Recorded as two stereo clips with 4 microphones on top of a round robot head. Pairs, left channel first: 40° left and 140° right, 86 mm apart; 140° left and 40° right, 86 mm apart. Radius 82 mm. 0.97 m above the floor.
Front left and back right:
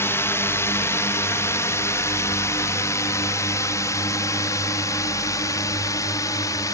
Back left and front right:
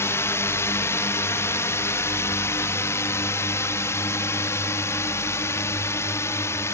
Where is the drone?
90° left; by 6.8 s 85° left.